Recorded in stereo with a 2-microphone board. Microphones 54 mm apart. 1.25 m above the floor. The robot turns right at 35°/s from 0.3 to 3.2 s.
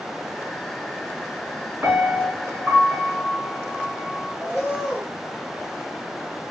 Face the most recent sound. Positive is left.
turn(degrees=-10)  # may be behind; listen again after turning